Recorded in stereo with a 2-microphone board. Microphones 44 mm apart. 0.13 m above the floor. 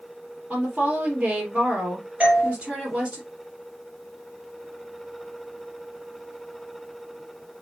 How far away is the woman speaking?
About 3.5 m.